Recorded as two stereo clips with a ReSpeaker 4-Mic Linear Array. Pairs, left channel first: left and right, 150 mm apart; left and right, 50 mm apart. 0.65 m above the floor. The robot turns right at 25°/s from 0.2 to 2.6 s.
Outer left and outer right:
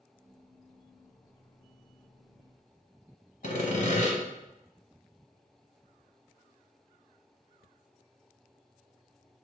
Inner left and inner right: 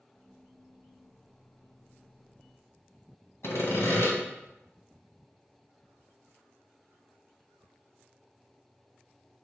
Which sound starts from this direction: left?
Sawing, at 3.4 s.